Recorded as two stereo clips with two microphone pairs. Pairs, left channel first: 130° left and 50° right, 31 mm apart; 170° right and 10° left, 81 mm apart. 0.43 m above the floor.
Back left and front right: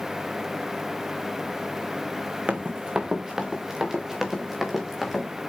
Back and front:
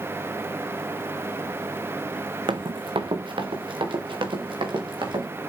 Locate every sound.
2.5 s running footsteps: straight ahead, 1.2 m; by 5.3 s 35° left, 4.5 m